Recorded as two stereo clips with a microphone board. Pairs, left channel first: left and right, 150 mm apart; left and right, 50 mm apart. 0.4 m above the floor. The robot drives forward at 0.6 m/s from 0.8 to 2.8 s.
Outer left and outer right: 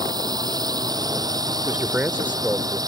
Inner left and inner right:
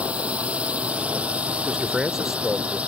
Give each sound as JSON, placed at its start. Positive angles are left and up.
{"t": 0.0, "sound": "a drone", "side_deg": -25}
{"t": 1.6, "sound": "a man speaking", "side_deg": -10}